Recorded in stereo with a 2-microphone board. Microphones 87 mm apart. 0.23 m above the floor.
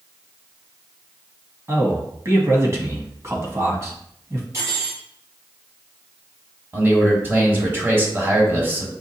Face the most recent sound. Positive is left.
turn(degrees=-25)  # may be behind; listen again after turning